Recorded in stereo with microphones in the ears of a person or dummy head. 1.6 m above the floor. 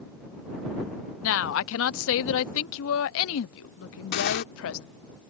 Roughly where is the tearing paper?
Left.